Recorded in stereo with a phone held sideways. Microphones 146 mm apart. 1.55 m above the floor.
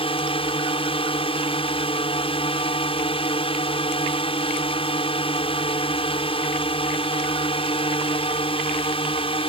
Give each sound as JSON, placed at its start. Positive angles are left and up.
{"t": 0.0, "sound": "a drone", "side_deg": 40}